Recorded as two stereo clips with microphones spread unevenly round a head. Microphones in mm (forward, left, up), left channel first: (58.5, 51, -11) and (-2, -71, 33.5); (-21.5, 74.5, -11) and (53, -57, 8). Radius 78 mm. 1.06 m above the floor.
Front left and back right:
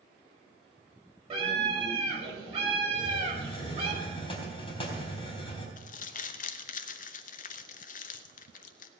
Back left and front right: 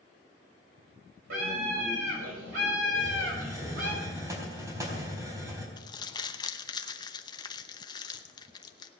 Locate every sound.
1.3 s a scream: 70° right, 5.5 m
2.9 s a hiss: 5° left, 3.5 m
5.8 s crumpling: 60° left, 0.8 m